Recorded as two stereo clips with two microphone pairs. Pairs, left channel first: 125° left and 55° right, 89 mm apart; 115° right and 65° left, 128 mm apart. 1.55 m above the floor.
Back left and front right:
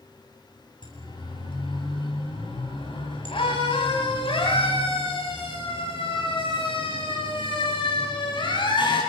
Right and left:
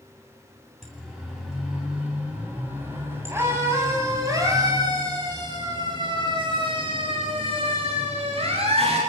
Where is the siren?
155° left, 9 m; by 9.0 s 105° left, 11 m.